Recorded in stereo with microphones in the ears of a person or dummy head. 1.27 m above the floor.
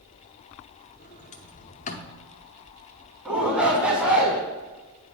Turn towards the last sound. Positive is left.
turn(degrees=-5)  # may be behind; listen again after turning